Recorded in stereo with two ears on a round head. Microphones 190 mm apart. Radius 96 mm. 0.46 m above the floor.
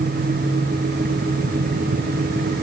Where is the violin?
No violin in this recording.